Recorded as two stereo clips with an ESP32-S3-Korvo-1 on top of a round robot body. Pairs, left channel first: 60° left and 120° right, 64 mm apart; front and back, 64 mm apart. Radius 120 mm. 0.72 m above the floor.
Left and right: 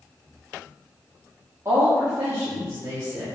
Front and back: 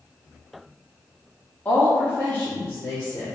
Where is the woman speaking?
70° right, 1.7 m; by 3.2 s 60° right, 3.5 m.